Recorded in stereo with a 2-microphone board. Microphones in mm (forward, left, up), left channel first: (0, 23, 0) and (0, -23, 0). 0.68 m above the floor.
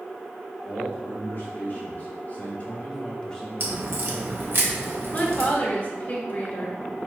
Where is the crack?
55° right (ahead or behind), 0.9 m.